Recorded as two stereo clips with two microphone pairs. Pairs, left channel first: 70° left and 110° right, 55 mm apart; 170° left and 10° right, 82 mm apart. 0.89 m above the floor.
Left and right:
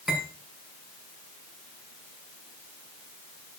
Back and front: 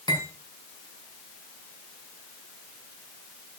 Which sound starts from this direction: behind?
Cutlery clinking, at 0.1 s.